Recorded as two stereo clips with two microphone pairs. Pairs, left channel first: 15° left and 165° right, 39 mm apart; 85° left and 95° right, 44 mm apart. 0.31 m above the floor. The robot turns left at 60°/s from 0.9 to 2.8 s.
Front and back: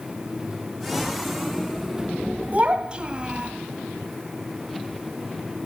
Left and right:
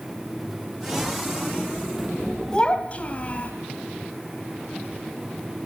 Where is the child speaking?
150° left, 1.4 m; by 3.5 s 135° left, 1.4 m.